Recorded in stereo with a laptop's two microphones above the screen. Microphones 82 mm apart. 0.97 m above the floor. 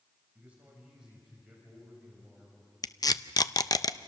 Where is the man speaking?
15° right (ahead or behind), 5.5 m; by 2.7 s 5° left (ahead or behind), 5.5 m.